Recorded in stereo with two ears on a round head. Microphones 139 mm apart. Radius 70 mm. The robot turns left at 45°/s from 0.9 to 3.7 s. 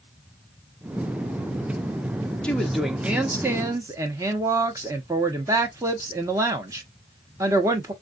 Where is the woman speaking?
5° left (ahead or behind), 0.7 m; by 7.9 s 20° right (ahead or behind), 0.7 m.